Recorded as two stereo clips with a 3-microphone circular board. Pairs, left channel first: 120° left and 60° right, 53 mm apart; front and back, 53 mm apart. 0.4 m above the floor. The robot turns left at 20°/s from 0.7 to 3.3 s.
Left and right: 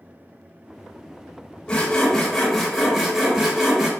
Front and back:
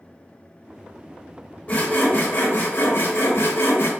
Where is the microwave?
No microwave in this recording.